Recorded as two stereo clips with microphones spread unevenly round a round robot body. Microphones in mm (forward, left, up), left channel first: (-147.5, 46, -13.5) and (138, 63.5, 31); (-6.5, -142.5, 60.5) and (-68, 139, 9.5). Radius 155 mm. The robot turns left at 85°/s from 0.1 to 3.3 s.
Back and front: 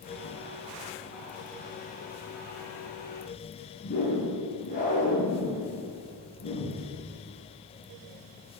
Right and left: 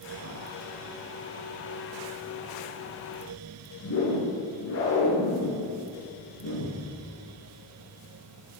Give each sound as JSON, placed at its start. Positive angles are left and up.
{"t": 3.8, "sound": "a whoosh", "azimuth_deg": -110, "distance_m": 10.0}